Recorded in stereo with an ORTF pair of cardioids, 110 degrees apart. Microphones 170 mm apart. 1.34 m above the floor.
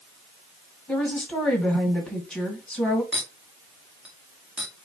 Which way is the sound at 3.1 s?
5° right.